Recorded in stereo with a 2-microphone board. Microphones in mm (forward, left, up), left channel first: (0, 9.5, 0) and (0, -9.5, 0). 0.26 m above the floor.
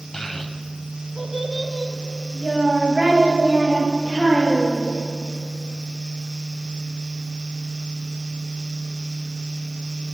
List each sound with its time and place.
0.1 s a child speaking: 30° left (ahead or behind), 0.8 m; by 4.9 s 35° right (ahead or behind), 4 m